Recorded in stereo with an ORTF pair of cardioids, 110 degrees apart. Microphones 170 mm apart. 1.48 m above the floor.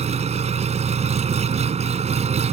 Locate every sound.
0.0 s an engine running: 40° right